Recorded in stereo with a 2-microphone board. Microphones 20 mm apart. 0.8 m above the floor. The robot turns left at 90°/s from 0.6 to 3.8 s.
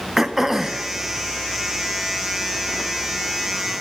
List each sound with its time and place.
0.2 s throat clearing: 20° right (ahead or behind), 0.5 m; by 0.9 s 45° right (ahead or behind), 0.5 m